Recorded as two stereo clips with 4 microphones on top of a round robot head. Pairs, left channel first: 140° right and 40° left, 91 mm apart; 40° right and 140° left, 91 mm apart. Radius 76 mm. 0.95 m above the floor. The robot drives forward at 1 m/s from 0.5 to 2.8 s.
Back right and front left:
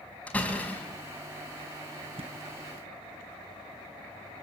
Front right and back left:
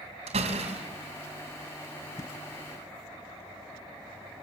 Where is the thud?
15° left, 1.9 m.